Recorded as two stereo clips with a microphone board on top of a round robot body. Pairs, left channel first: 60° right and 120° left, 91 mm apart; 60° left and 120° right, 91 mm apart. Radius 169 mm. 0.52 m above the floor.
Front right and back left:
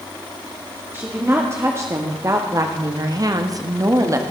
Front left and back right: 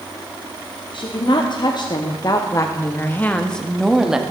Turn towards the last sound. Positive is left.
turn(degrees=160)